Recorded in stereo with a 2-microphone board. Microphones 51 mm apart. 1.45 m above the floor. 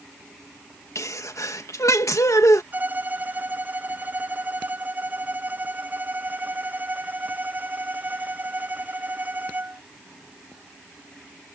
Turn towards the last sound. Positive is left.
turn(degrees=-35)  # may be behind; listen again after turning